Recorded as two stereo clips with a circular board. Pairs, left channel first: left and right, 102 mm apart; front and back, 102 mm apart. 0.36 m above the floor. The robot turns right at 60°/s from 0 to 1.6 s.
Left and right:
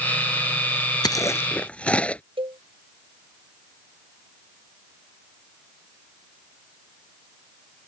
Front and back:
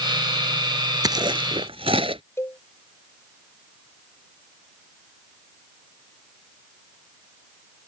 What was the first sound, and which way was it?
Chewing, 135° left.